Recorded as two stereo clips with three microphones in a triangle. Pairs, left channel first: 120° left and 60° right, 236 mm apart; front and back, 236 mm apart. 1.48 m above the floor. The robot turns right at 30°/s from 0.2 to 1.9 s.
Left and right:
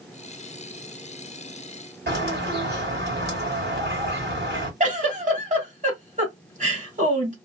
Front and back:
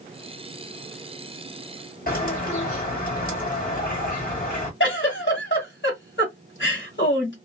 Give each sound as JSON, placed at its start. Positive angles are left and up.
{"t": 2.1, "sound": "a bird", "azimuth_deg": -40, "distance_m": 1.9}
{"t": 4.8, "sound": "a giggle", "azimuth_deg": -10, "distance_m": 1.9}